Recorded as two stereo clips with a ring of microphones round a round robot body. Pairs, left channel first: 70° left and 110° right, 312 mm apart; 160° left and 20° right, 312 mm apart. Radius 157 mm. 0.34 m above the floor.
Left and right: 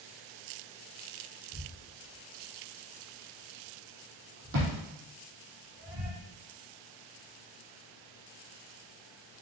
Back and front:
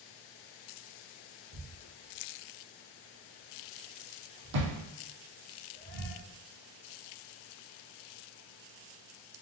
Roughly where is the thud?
Ahead right.